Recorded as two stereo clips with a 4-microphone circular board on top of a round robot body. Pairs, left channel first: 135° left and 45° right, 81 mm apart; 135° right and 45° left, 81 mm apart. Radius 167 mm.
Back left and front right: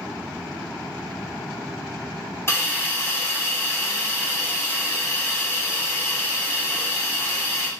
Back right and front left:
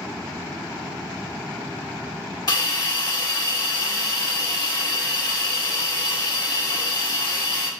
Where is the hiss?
170° right, 2 m.